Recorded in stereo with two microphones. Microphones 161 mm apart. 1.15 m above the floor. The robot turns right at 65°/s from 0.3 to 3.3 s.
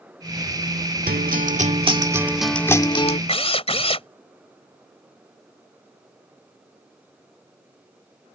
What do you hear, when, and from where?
1.1 s a guitar: 90° right; by 3.2 s 50° left
3.3 s a drill: 40° left (ahead or behind)